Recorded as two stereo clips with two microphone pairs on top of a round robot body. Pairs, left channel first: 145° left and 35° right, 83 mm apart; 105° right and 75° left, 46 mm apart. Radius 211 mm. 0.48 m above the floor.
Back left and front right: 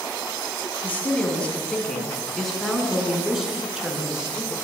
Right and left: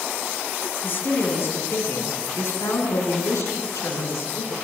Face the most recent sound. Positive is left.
turn(degrees=-115)